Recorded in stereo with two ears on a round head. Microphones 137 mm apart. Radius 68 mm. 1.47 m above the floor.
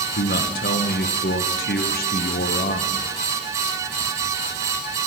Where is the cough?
I don't hear a cough.